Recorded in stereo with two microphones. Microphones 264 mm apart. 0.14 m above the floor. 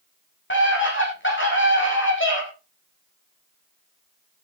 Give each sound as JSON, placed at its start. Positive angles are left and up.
{"t": 0.5, "sound": "a scream", "side_deg": 45, "distance_m": 9.5}